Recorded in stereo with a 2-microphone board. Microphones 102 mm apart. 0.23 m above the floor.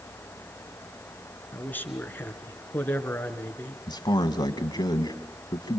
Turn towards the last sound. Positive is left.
turn(degrees=45)  # may be behind; listen again after turning